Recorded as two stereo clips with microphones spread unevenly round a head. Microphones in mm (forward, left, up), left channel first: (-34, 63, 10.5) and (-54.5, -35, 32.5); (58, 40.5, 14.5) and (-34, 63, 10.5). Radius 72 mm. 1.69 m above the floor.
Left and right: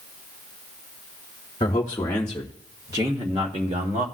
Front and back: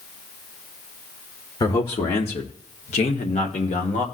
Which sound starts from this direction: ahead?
A man speaking, at 1.6 s.